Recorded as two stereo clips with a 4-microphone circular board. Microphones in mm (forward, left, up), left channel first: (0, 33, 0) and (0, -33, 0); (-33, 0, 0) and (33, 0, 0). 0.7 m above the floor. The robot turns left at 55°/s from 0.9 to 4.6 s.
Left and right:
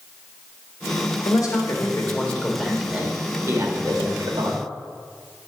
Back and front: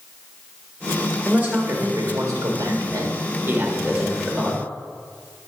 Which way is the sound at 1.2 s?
70° left.